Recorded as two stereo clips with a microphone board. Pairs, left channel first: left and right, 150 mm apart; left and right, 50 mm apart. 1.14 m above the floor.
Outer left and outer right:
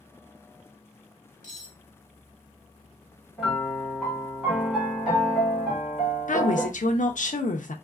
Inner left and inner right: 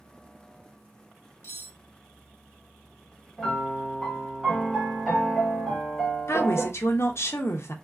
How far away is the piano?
About 1.8 m.